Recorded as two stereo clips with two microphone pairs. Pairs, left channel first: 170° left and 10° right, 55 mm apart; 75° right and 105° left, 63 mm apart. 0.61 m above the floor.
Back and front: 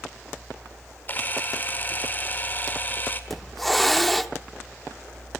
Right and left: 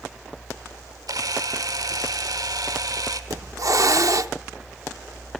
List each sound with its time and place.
1.1 s a camera shutter: 115° left, 1.6 m
3.3 s a hiss: 80° left, 0.8 m